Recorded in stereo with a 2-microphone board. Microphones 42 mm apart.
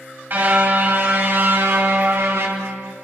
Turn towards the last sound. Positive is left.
turn(degrees=-80)